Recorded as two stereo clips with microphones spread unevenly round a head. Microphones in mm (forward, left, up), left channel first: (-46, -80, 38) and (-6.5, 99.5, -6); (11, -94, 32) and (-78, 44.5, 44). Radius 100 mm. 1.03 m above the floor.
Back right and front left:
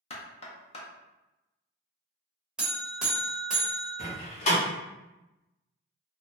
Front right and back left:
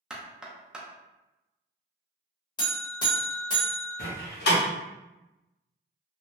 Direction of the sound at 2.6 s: 40° right.